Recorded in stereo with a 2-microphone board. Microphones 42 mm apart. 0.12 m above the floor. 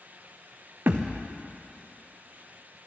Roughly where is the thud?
Right.